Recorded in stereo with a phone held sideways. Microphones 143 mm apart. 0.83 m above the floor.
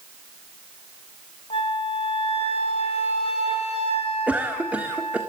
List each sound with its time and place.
1.5 s a flute: 45° left (ahead or behind), 3 m
4.3 s a cough: 10° right (ahead or behind), 1.7 m